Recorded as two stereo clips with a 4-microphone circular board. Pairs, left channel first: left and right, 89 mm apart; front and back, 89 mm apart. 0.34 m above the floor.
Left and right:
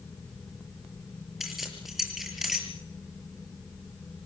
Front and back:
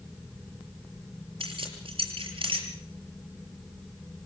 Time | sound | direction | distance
1.4 | keys jangling | straight behind | 5.5 m